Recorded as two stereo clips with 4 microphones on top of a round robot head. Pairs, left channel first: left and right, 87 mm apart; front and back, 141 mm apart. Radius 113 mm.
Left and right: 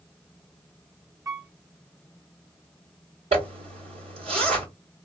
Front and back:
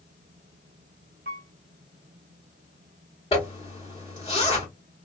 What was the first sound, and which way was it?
A piano, 140° right.